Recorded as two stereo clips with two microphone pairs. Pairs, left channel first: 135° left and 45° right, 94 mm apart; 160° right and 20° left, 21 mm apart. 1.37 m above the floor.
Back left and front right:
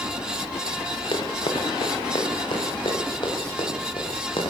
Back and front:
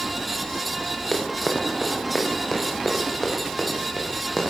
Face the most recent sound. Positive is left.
turn(degrees=120)